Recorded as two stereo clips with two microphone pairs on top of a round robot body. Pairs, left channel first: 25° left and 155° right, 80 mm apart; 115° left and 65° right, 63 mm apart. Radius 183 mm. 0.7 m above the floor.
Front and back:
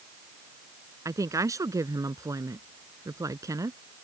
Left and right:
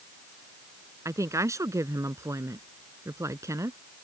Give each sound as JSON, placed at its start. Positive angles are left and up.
{"t": 1.1, "sound": "a woman speaking", "azimuth_deg": -105}